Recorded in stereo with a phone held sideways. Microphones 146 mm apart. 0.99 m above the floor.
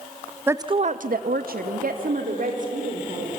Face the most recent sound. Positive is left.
turn(degrees=-55)  # may be behind; listen again after turning